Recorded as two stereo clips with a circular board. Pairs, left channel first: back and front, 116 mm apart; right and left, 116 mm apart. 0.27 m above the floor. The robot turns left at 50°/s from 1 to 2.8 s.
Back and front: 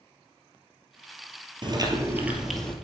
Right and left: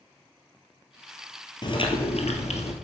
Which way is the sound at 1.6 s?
45° right.